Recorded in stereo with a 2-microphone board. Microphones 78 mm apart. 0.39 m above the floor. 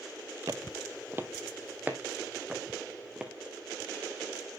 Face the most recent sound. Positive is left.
turn(degrees=-15)  # may be behind; listen again after turning